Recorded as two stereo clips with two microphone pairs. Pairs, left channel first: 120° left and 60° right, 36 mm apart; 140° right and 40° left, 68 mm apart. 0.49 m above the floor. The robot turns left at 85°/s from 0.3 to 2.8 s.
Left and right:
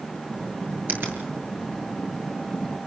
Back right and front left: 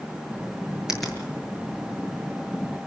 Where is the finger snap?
40° right, 7 m; by 1.2 s 65° right, 7 m.